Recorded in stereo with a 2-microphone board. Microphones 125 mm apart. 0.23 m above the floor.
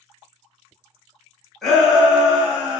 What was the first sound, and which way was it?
A shout, centre (ahead or behind).